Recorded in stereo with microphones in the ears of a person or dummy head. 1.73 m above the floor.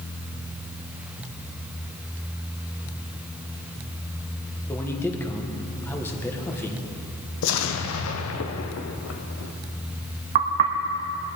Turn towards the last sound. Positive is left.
turn(degrees=-25)  # may be behind; listen again after turning